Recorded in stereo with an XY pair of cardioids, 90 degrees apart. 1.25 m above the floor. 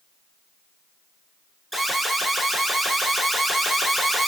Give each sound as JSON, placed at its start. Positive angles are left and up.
{"t": 1.7, "sound": "an alarm", "azimuth_deg": -10, "distance_m": 1.1}